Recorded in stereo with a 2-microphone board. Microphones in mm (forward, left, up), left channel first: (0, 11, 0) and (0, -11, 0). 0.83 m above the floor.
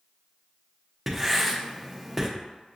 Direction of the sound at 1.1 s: Centre (ahead or behind).